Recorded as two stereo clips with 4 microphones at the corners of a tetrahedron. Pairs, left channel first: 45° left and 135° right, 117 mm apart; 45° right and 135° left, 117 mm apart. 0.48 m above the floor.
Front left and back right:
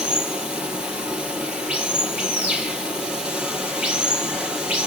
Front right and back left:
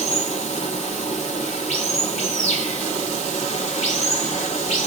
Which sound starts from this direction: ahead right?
Running water, at 0.0 s.